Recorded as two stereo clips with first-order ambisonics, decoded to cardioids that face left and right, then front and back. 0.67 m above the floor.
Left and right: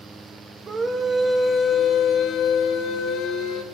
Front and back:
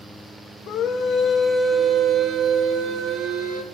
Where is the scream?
30° right, 1.0 m; by 3.6 s 135° left, 2 m.